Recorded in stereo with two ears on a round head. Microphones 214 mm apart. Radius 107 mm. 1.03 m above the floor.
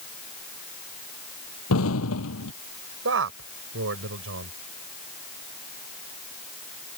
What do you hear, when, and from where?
1.7 s an explosion: 65° left (ahead or behind)
3.0 s a man speaking: 60° right (ahead or behind)